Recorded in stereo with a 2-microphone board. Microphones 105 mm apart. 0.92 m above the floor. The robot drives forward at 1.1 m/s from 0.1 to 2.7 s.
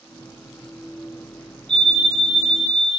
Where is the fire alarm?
10° left (ahead or behind), 3.5 m; by 3.0 s 5° left (ahead or behind), 4.5 m.